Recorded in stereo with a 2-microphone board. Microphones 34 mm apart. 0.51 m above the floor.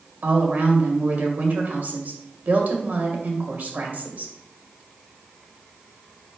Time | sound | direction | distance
0.2 | a woman speaking | 55° right (ahead or behind) | 2 m